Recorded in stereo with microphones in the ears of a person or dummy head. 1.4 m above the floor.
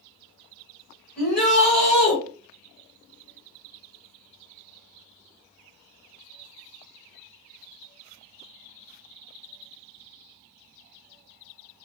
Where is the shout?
10° right (ahead or behind), 1.4 m.